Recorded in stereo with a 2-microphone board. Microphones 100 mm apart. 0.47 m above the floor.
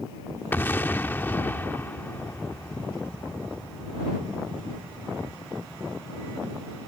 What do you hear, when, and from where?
0.5 s an explosion: 20° left (ahead or behind)